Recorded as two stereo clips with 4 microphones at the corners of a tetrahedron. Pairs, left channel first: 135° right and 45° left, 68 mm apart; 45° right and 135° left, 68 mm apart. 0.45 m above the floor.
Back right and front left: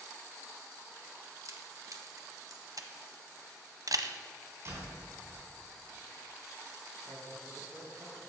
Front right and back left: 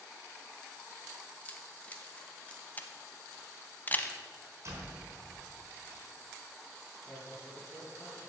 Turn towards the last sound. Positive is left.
turn(degrees=35)